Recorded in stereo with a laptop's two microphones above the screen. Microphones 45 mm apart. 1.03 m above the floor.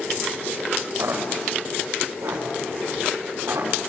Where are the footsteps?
80° right, 6 m.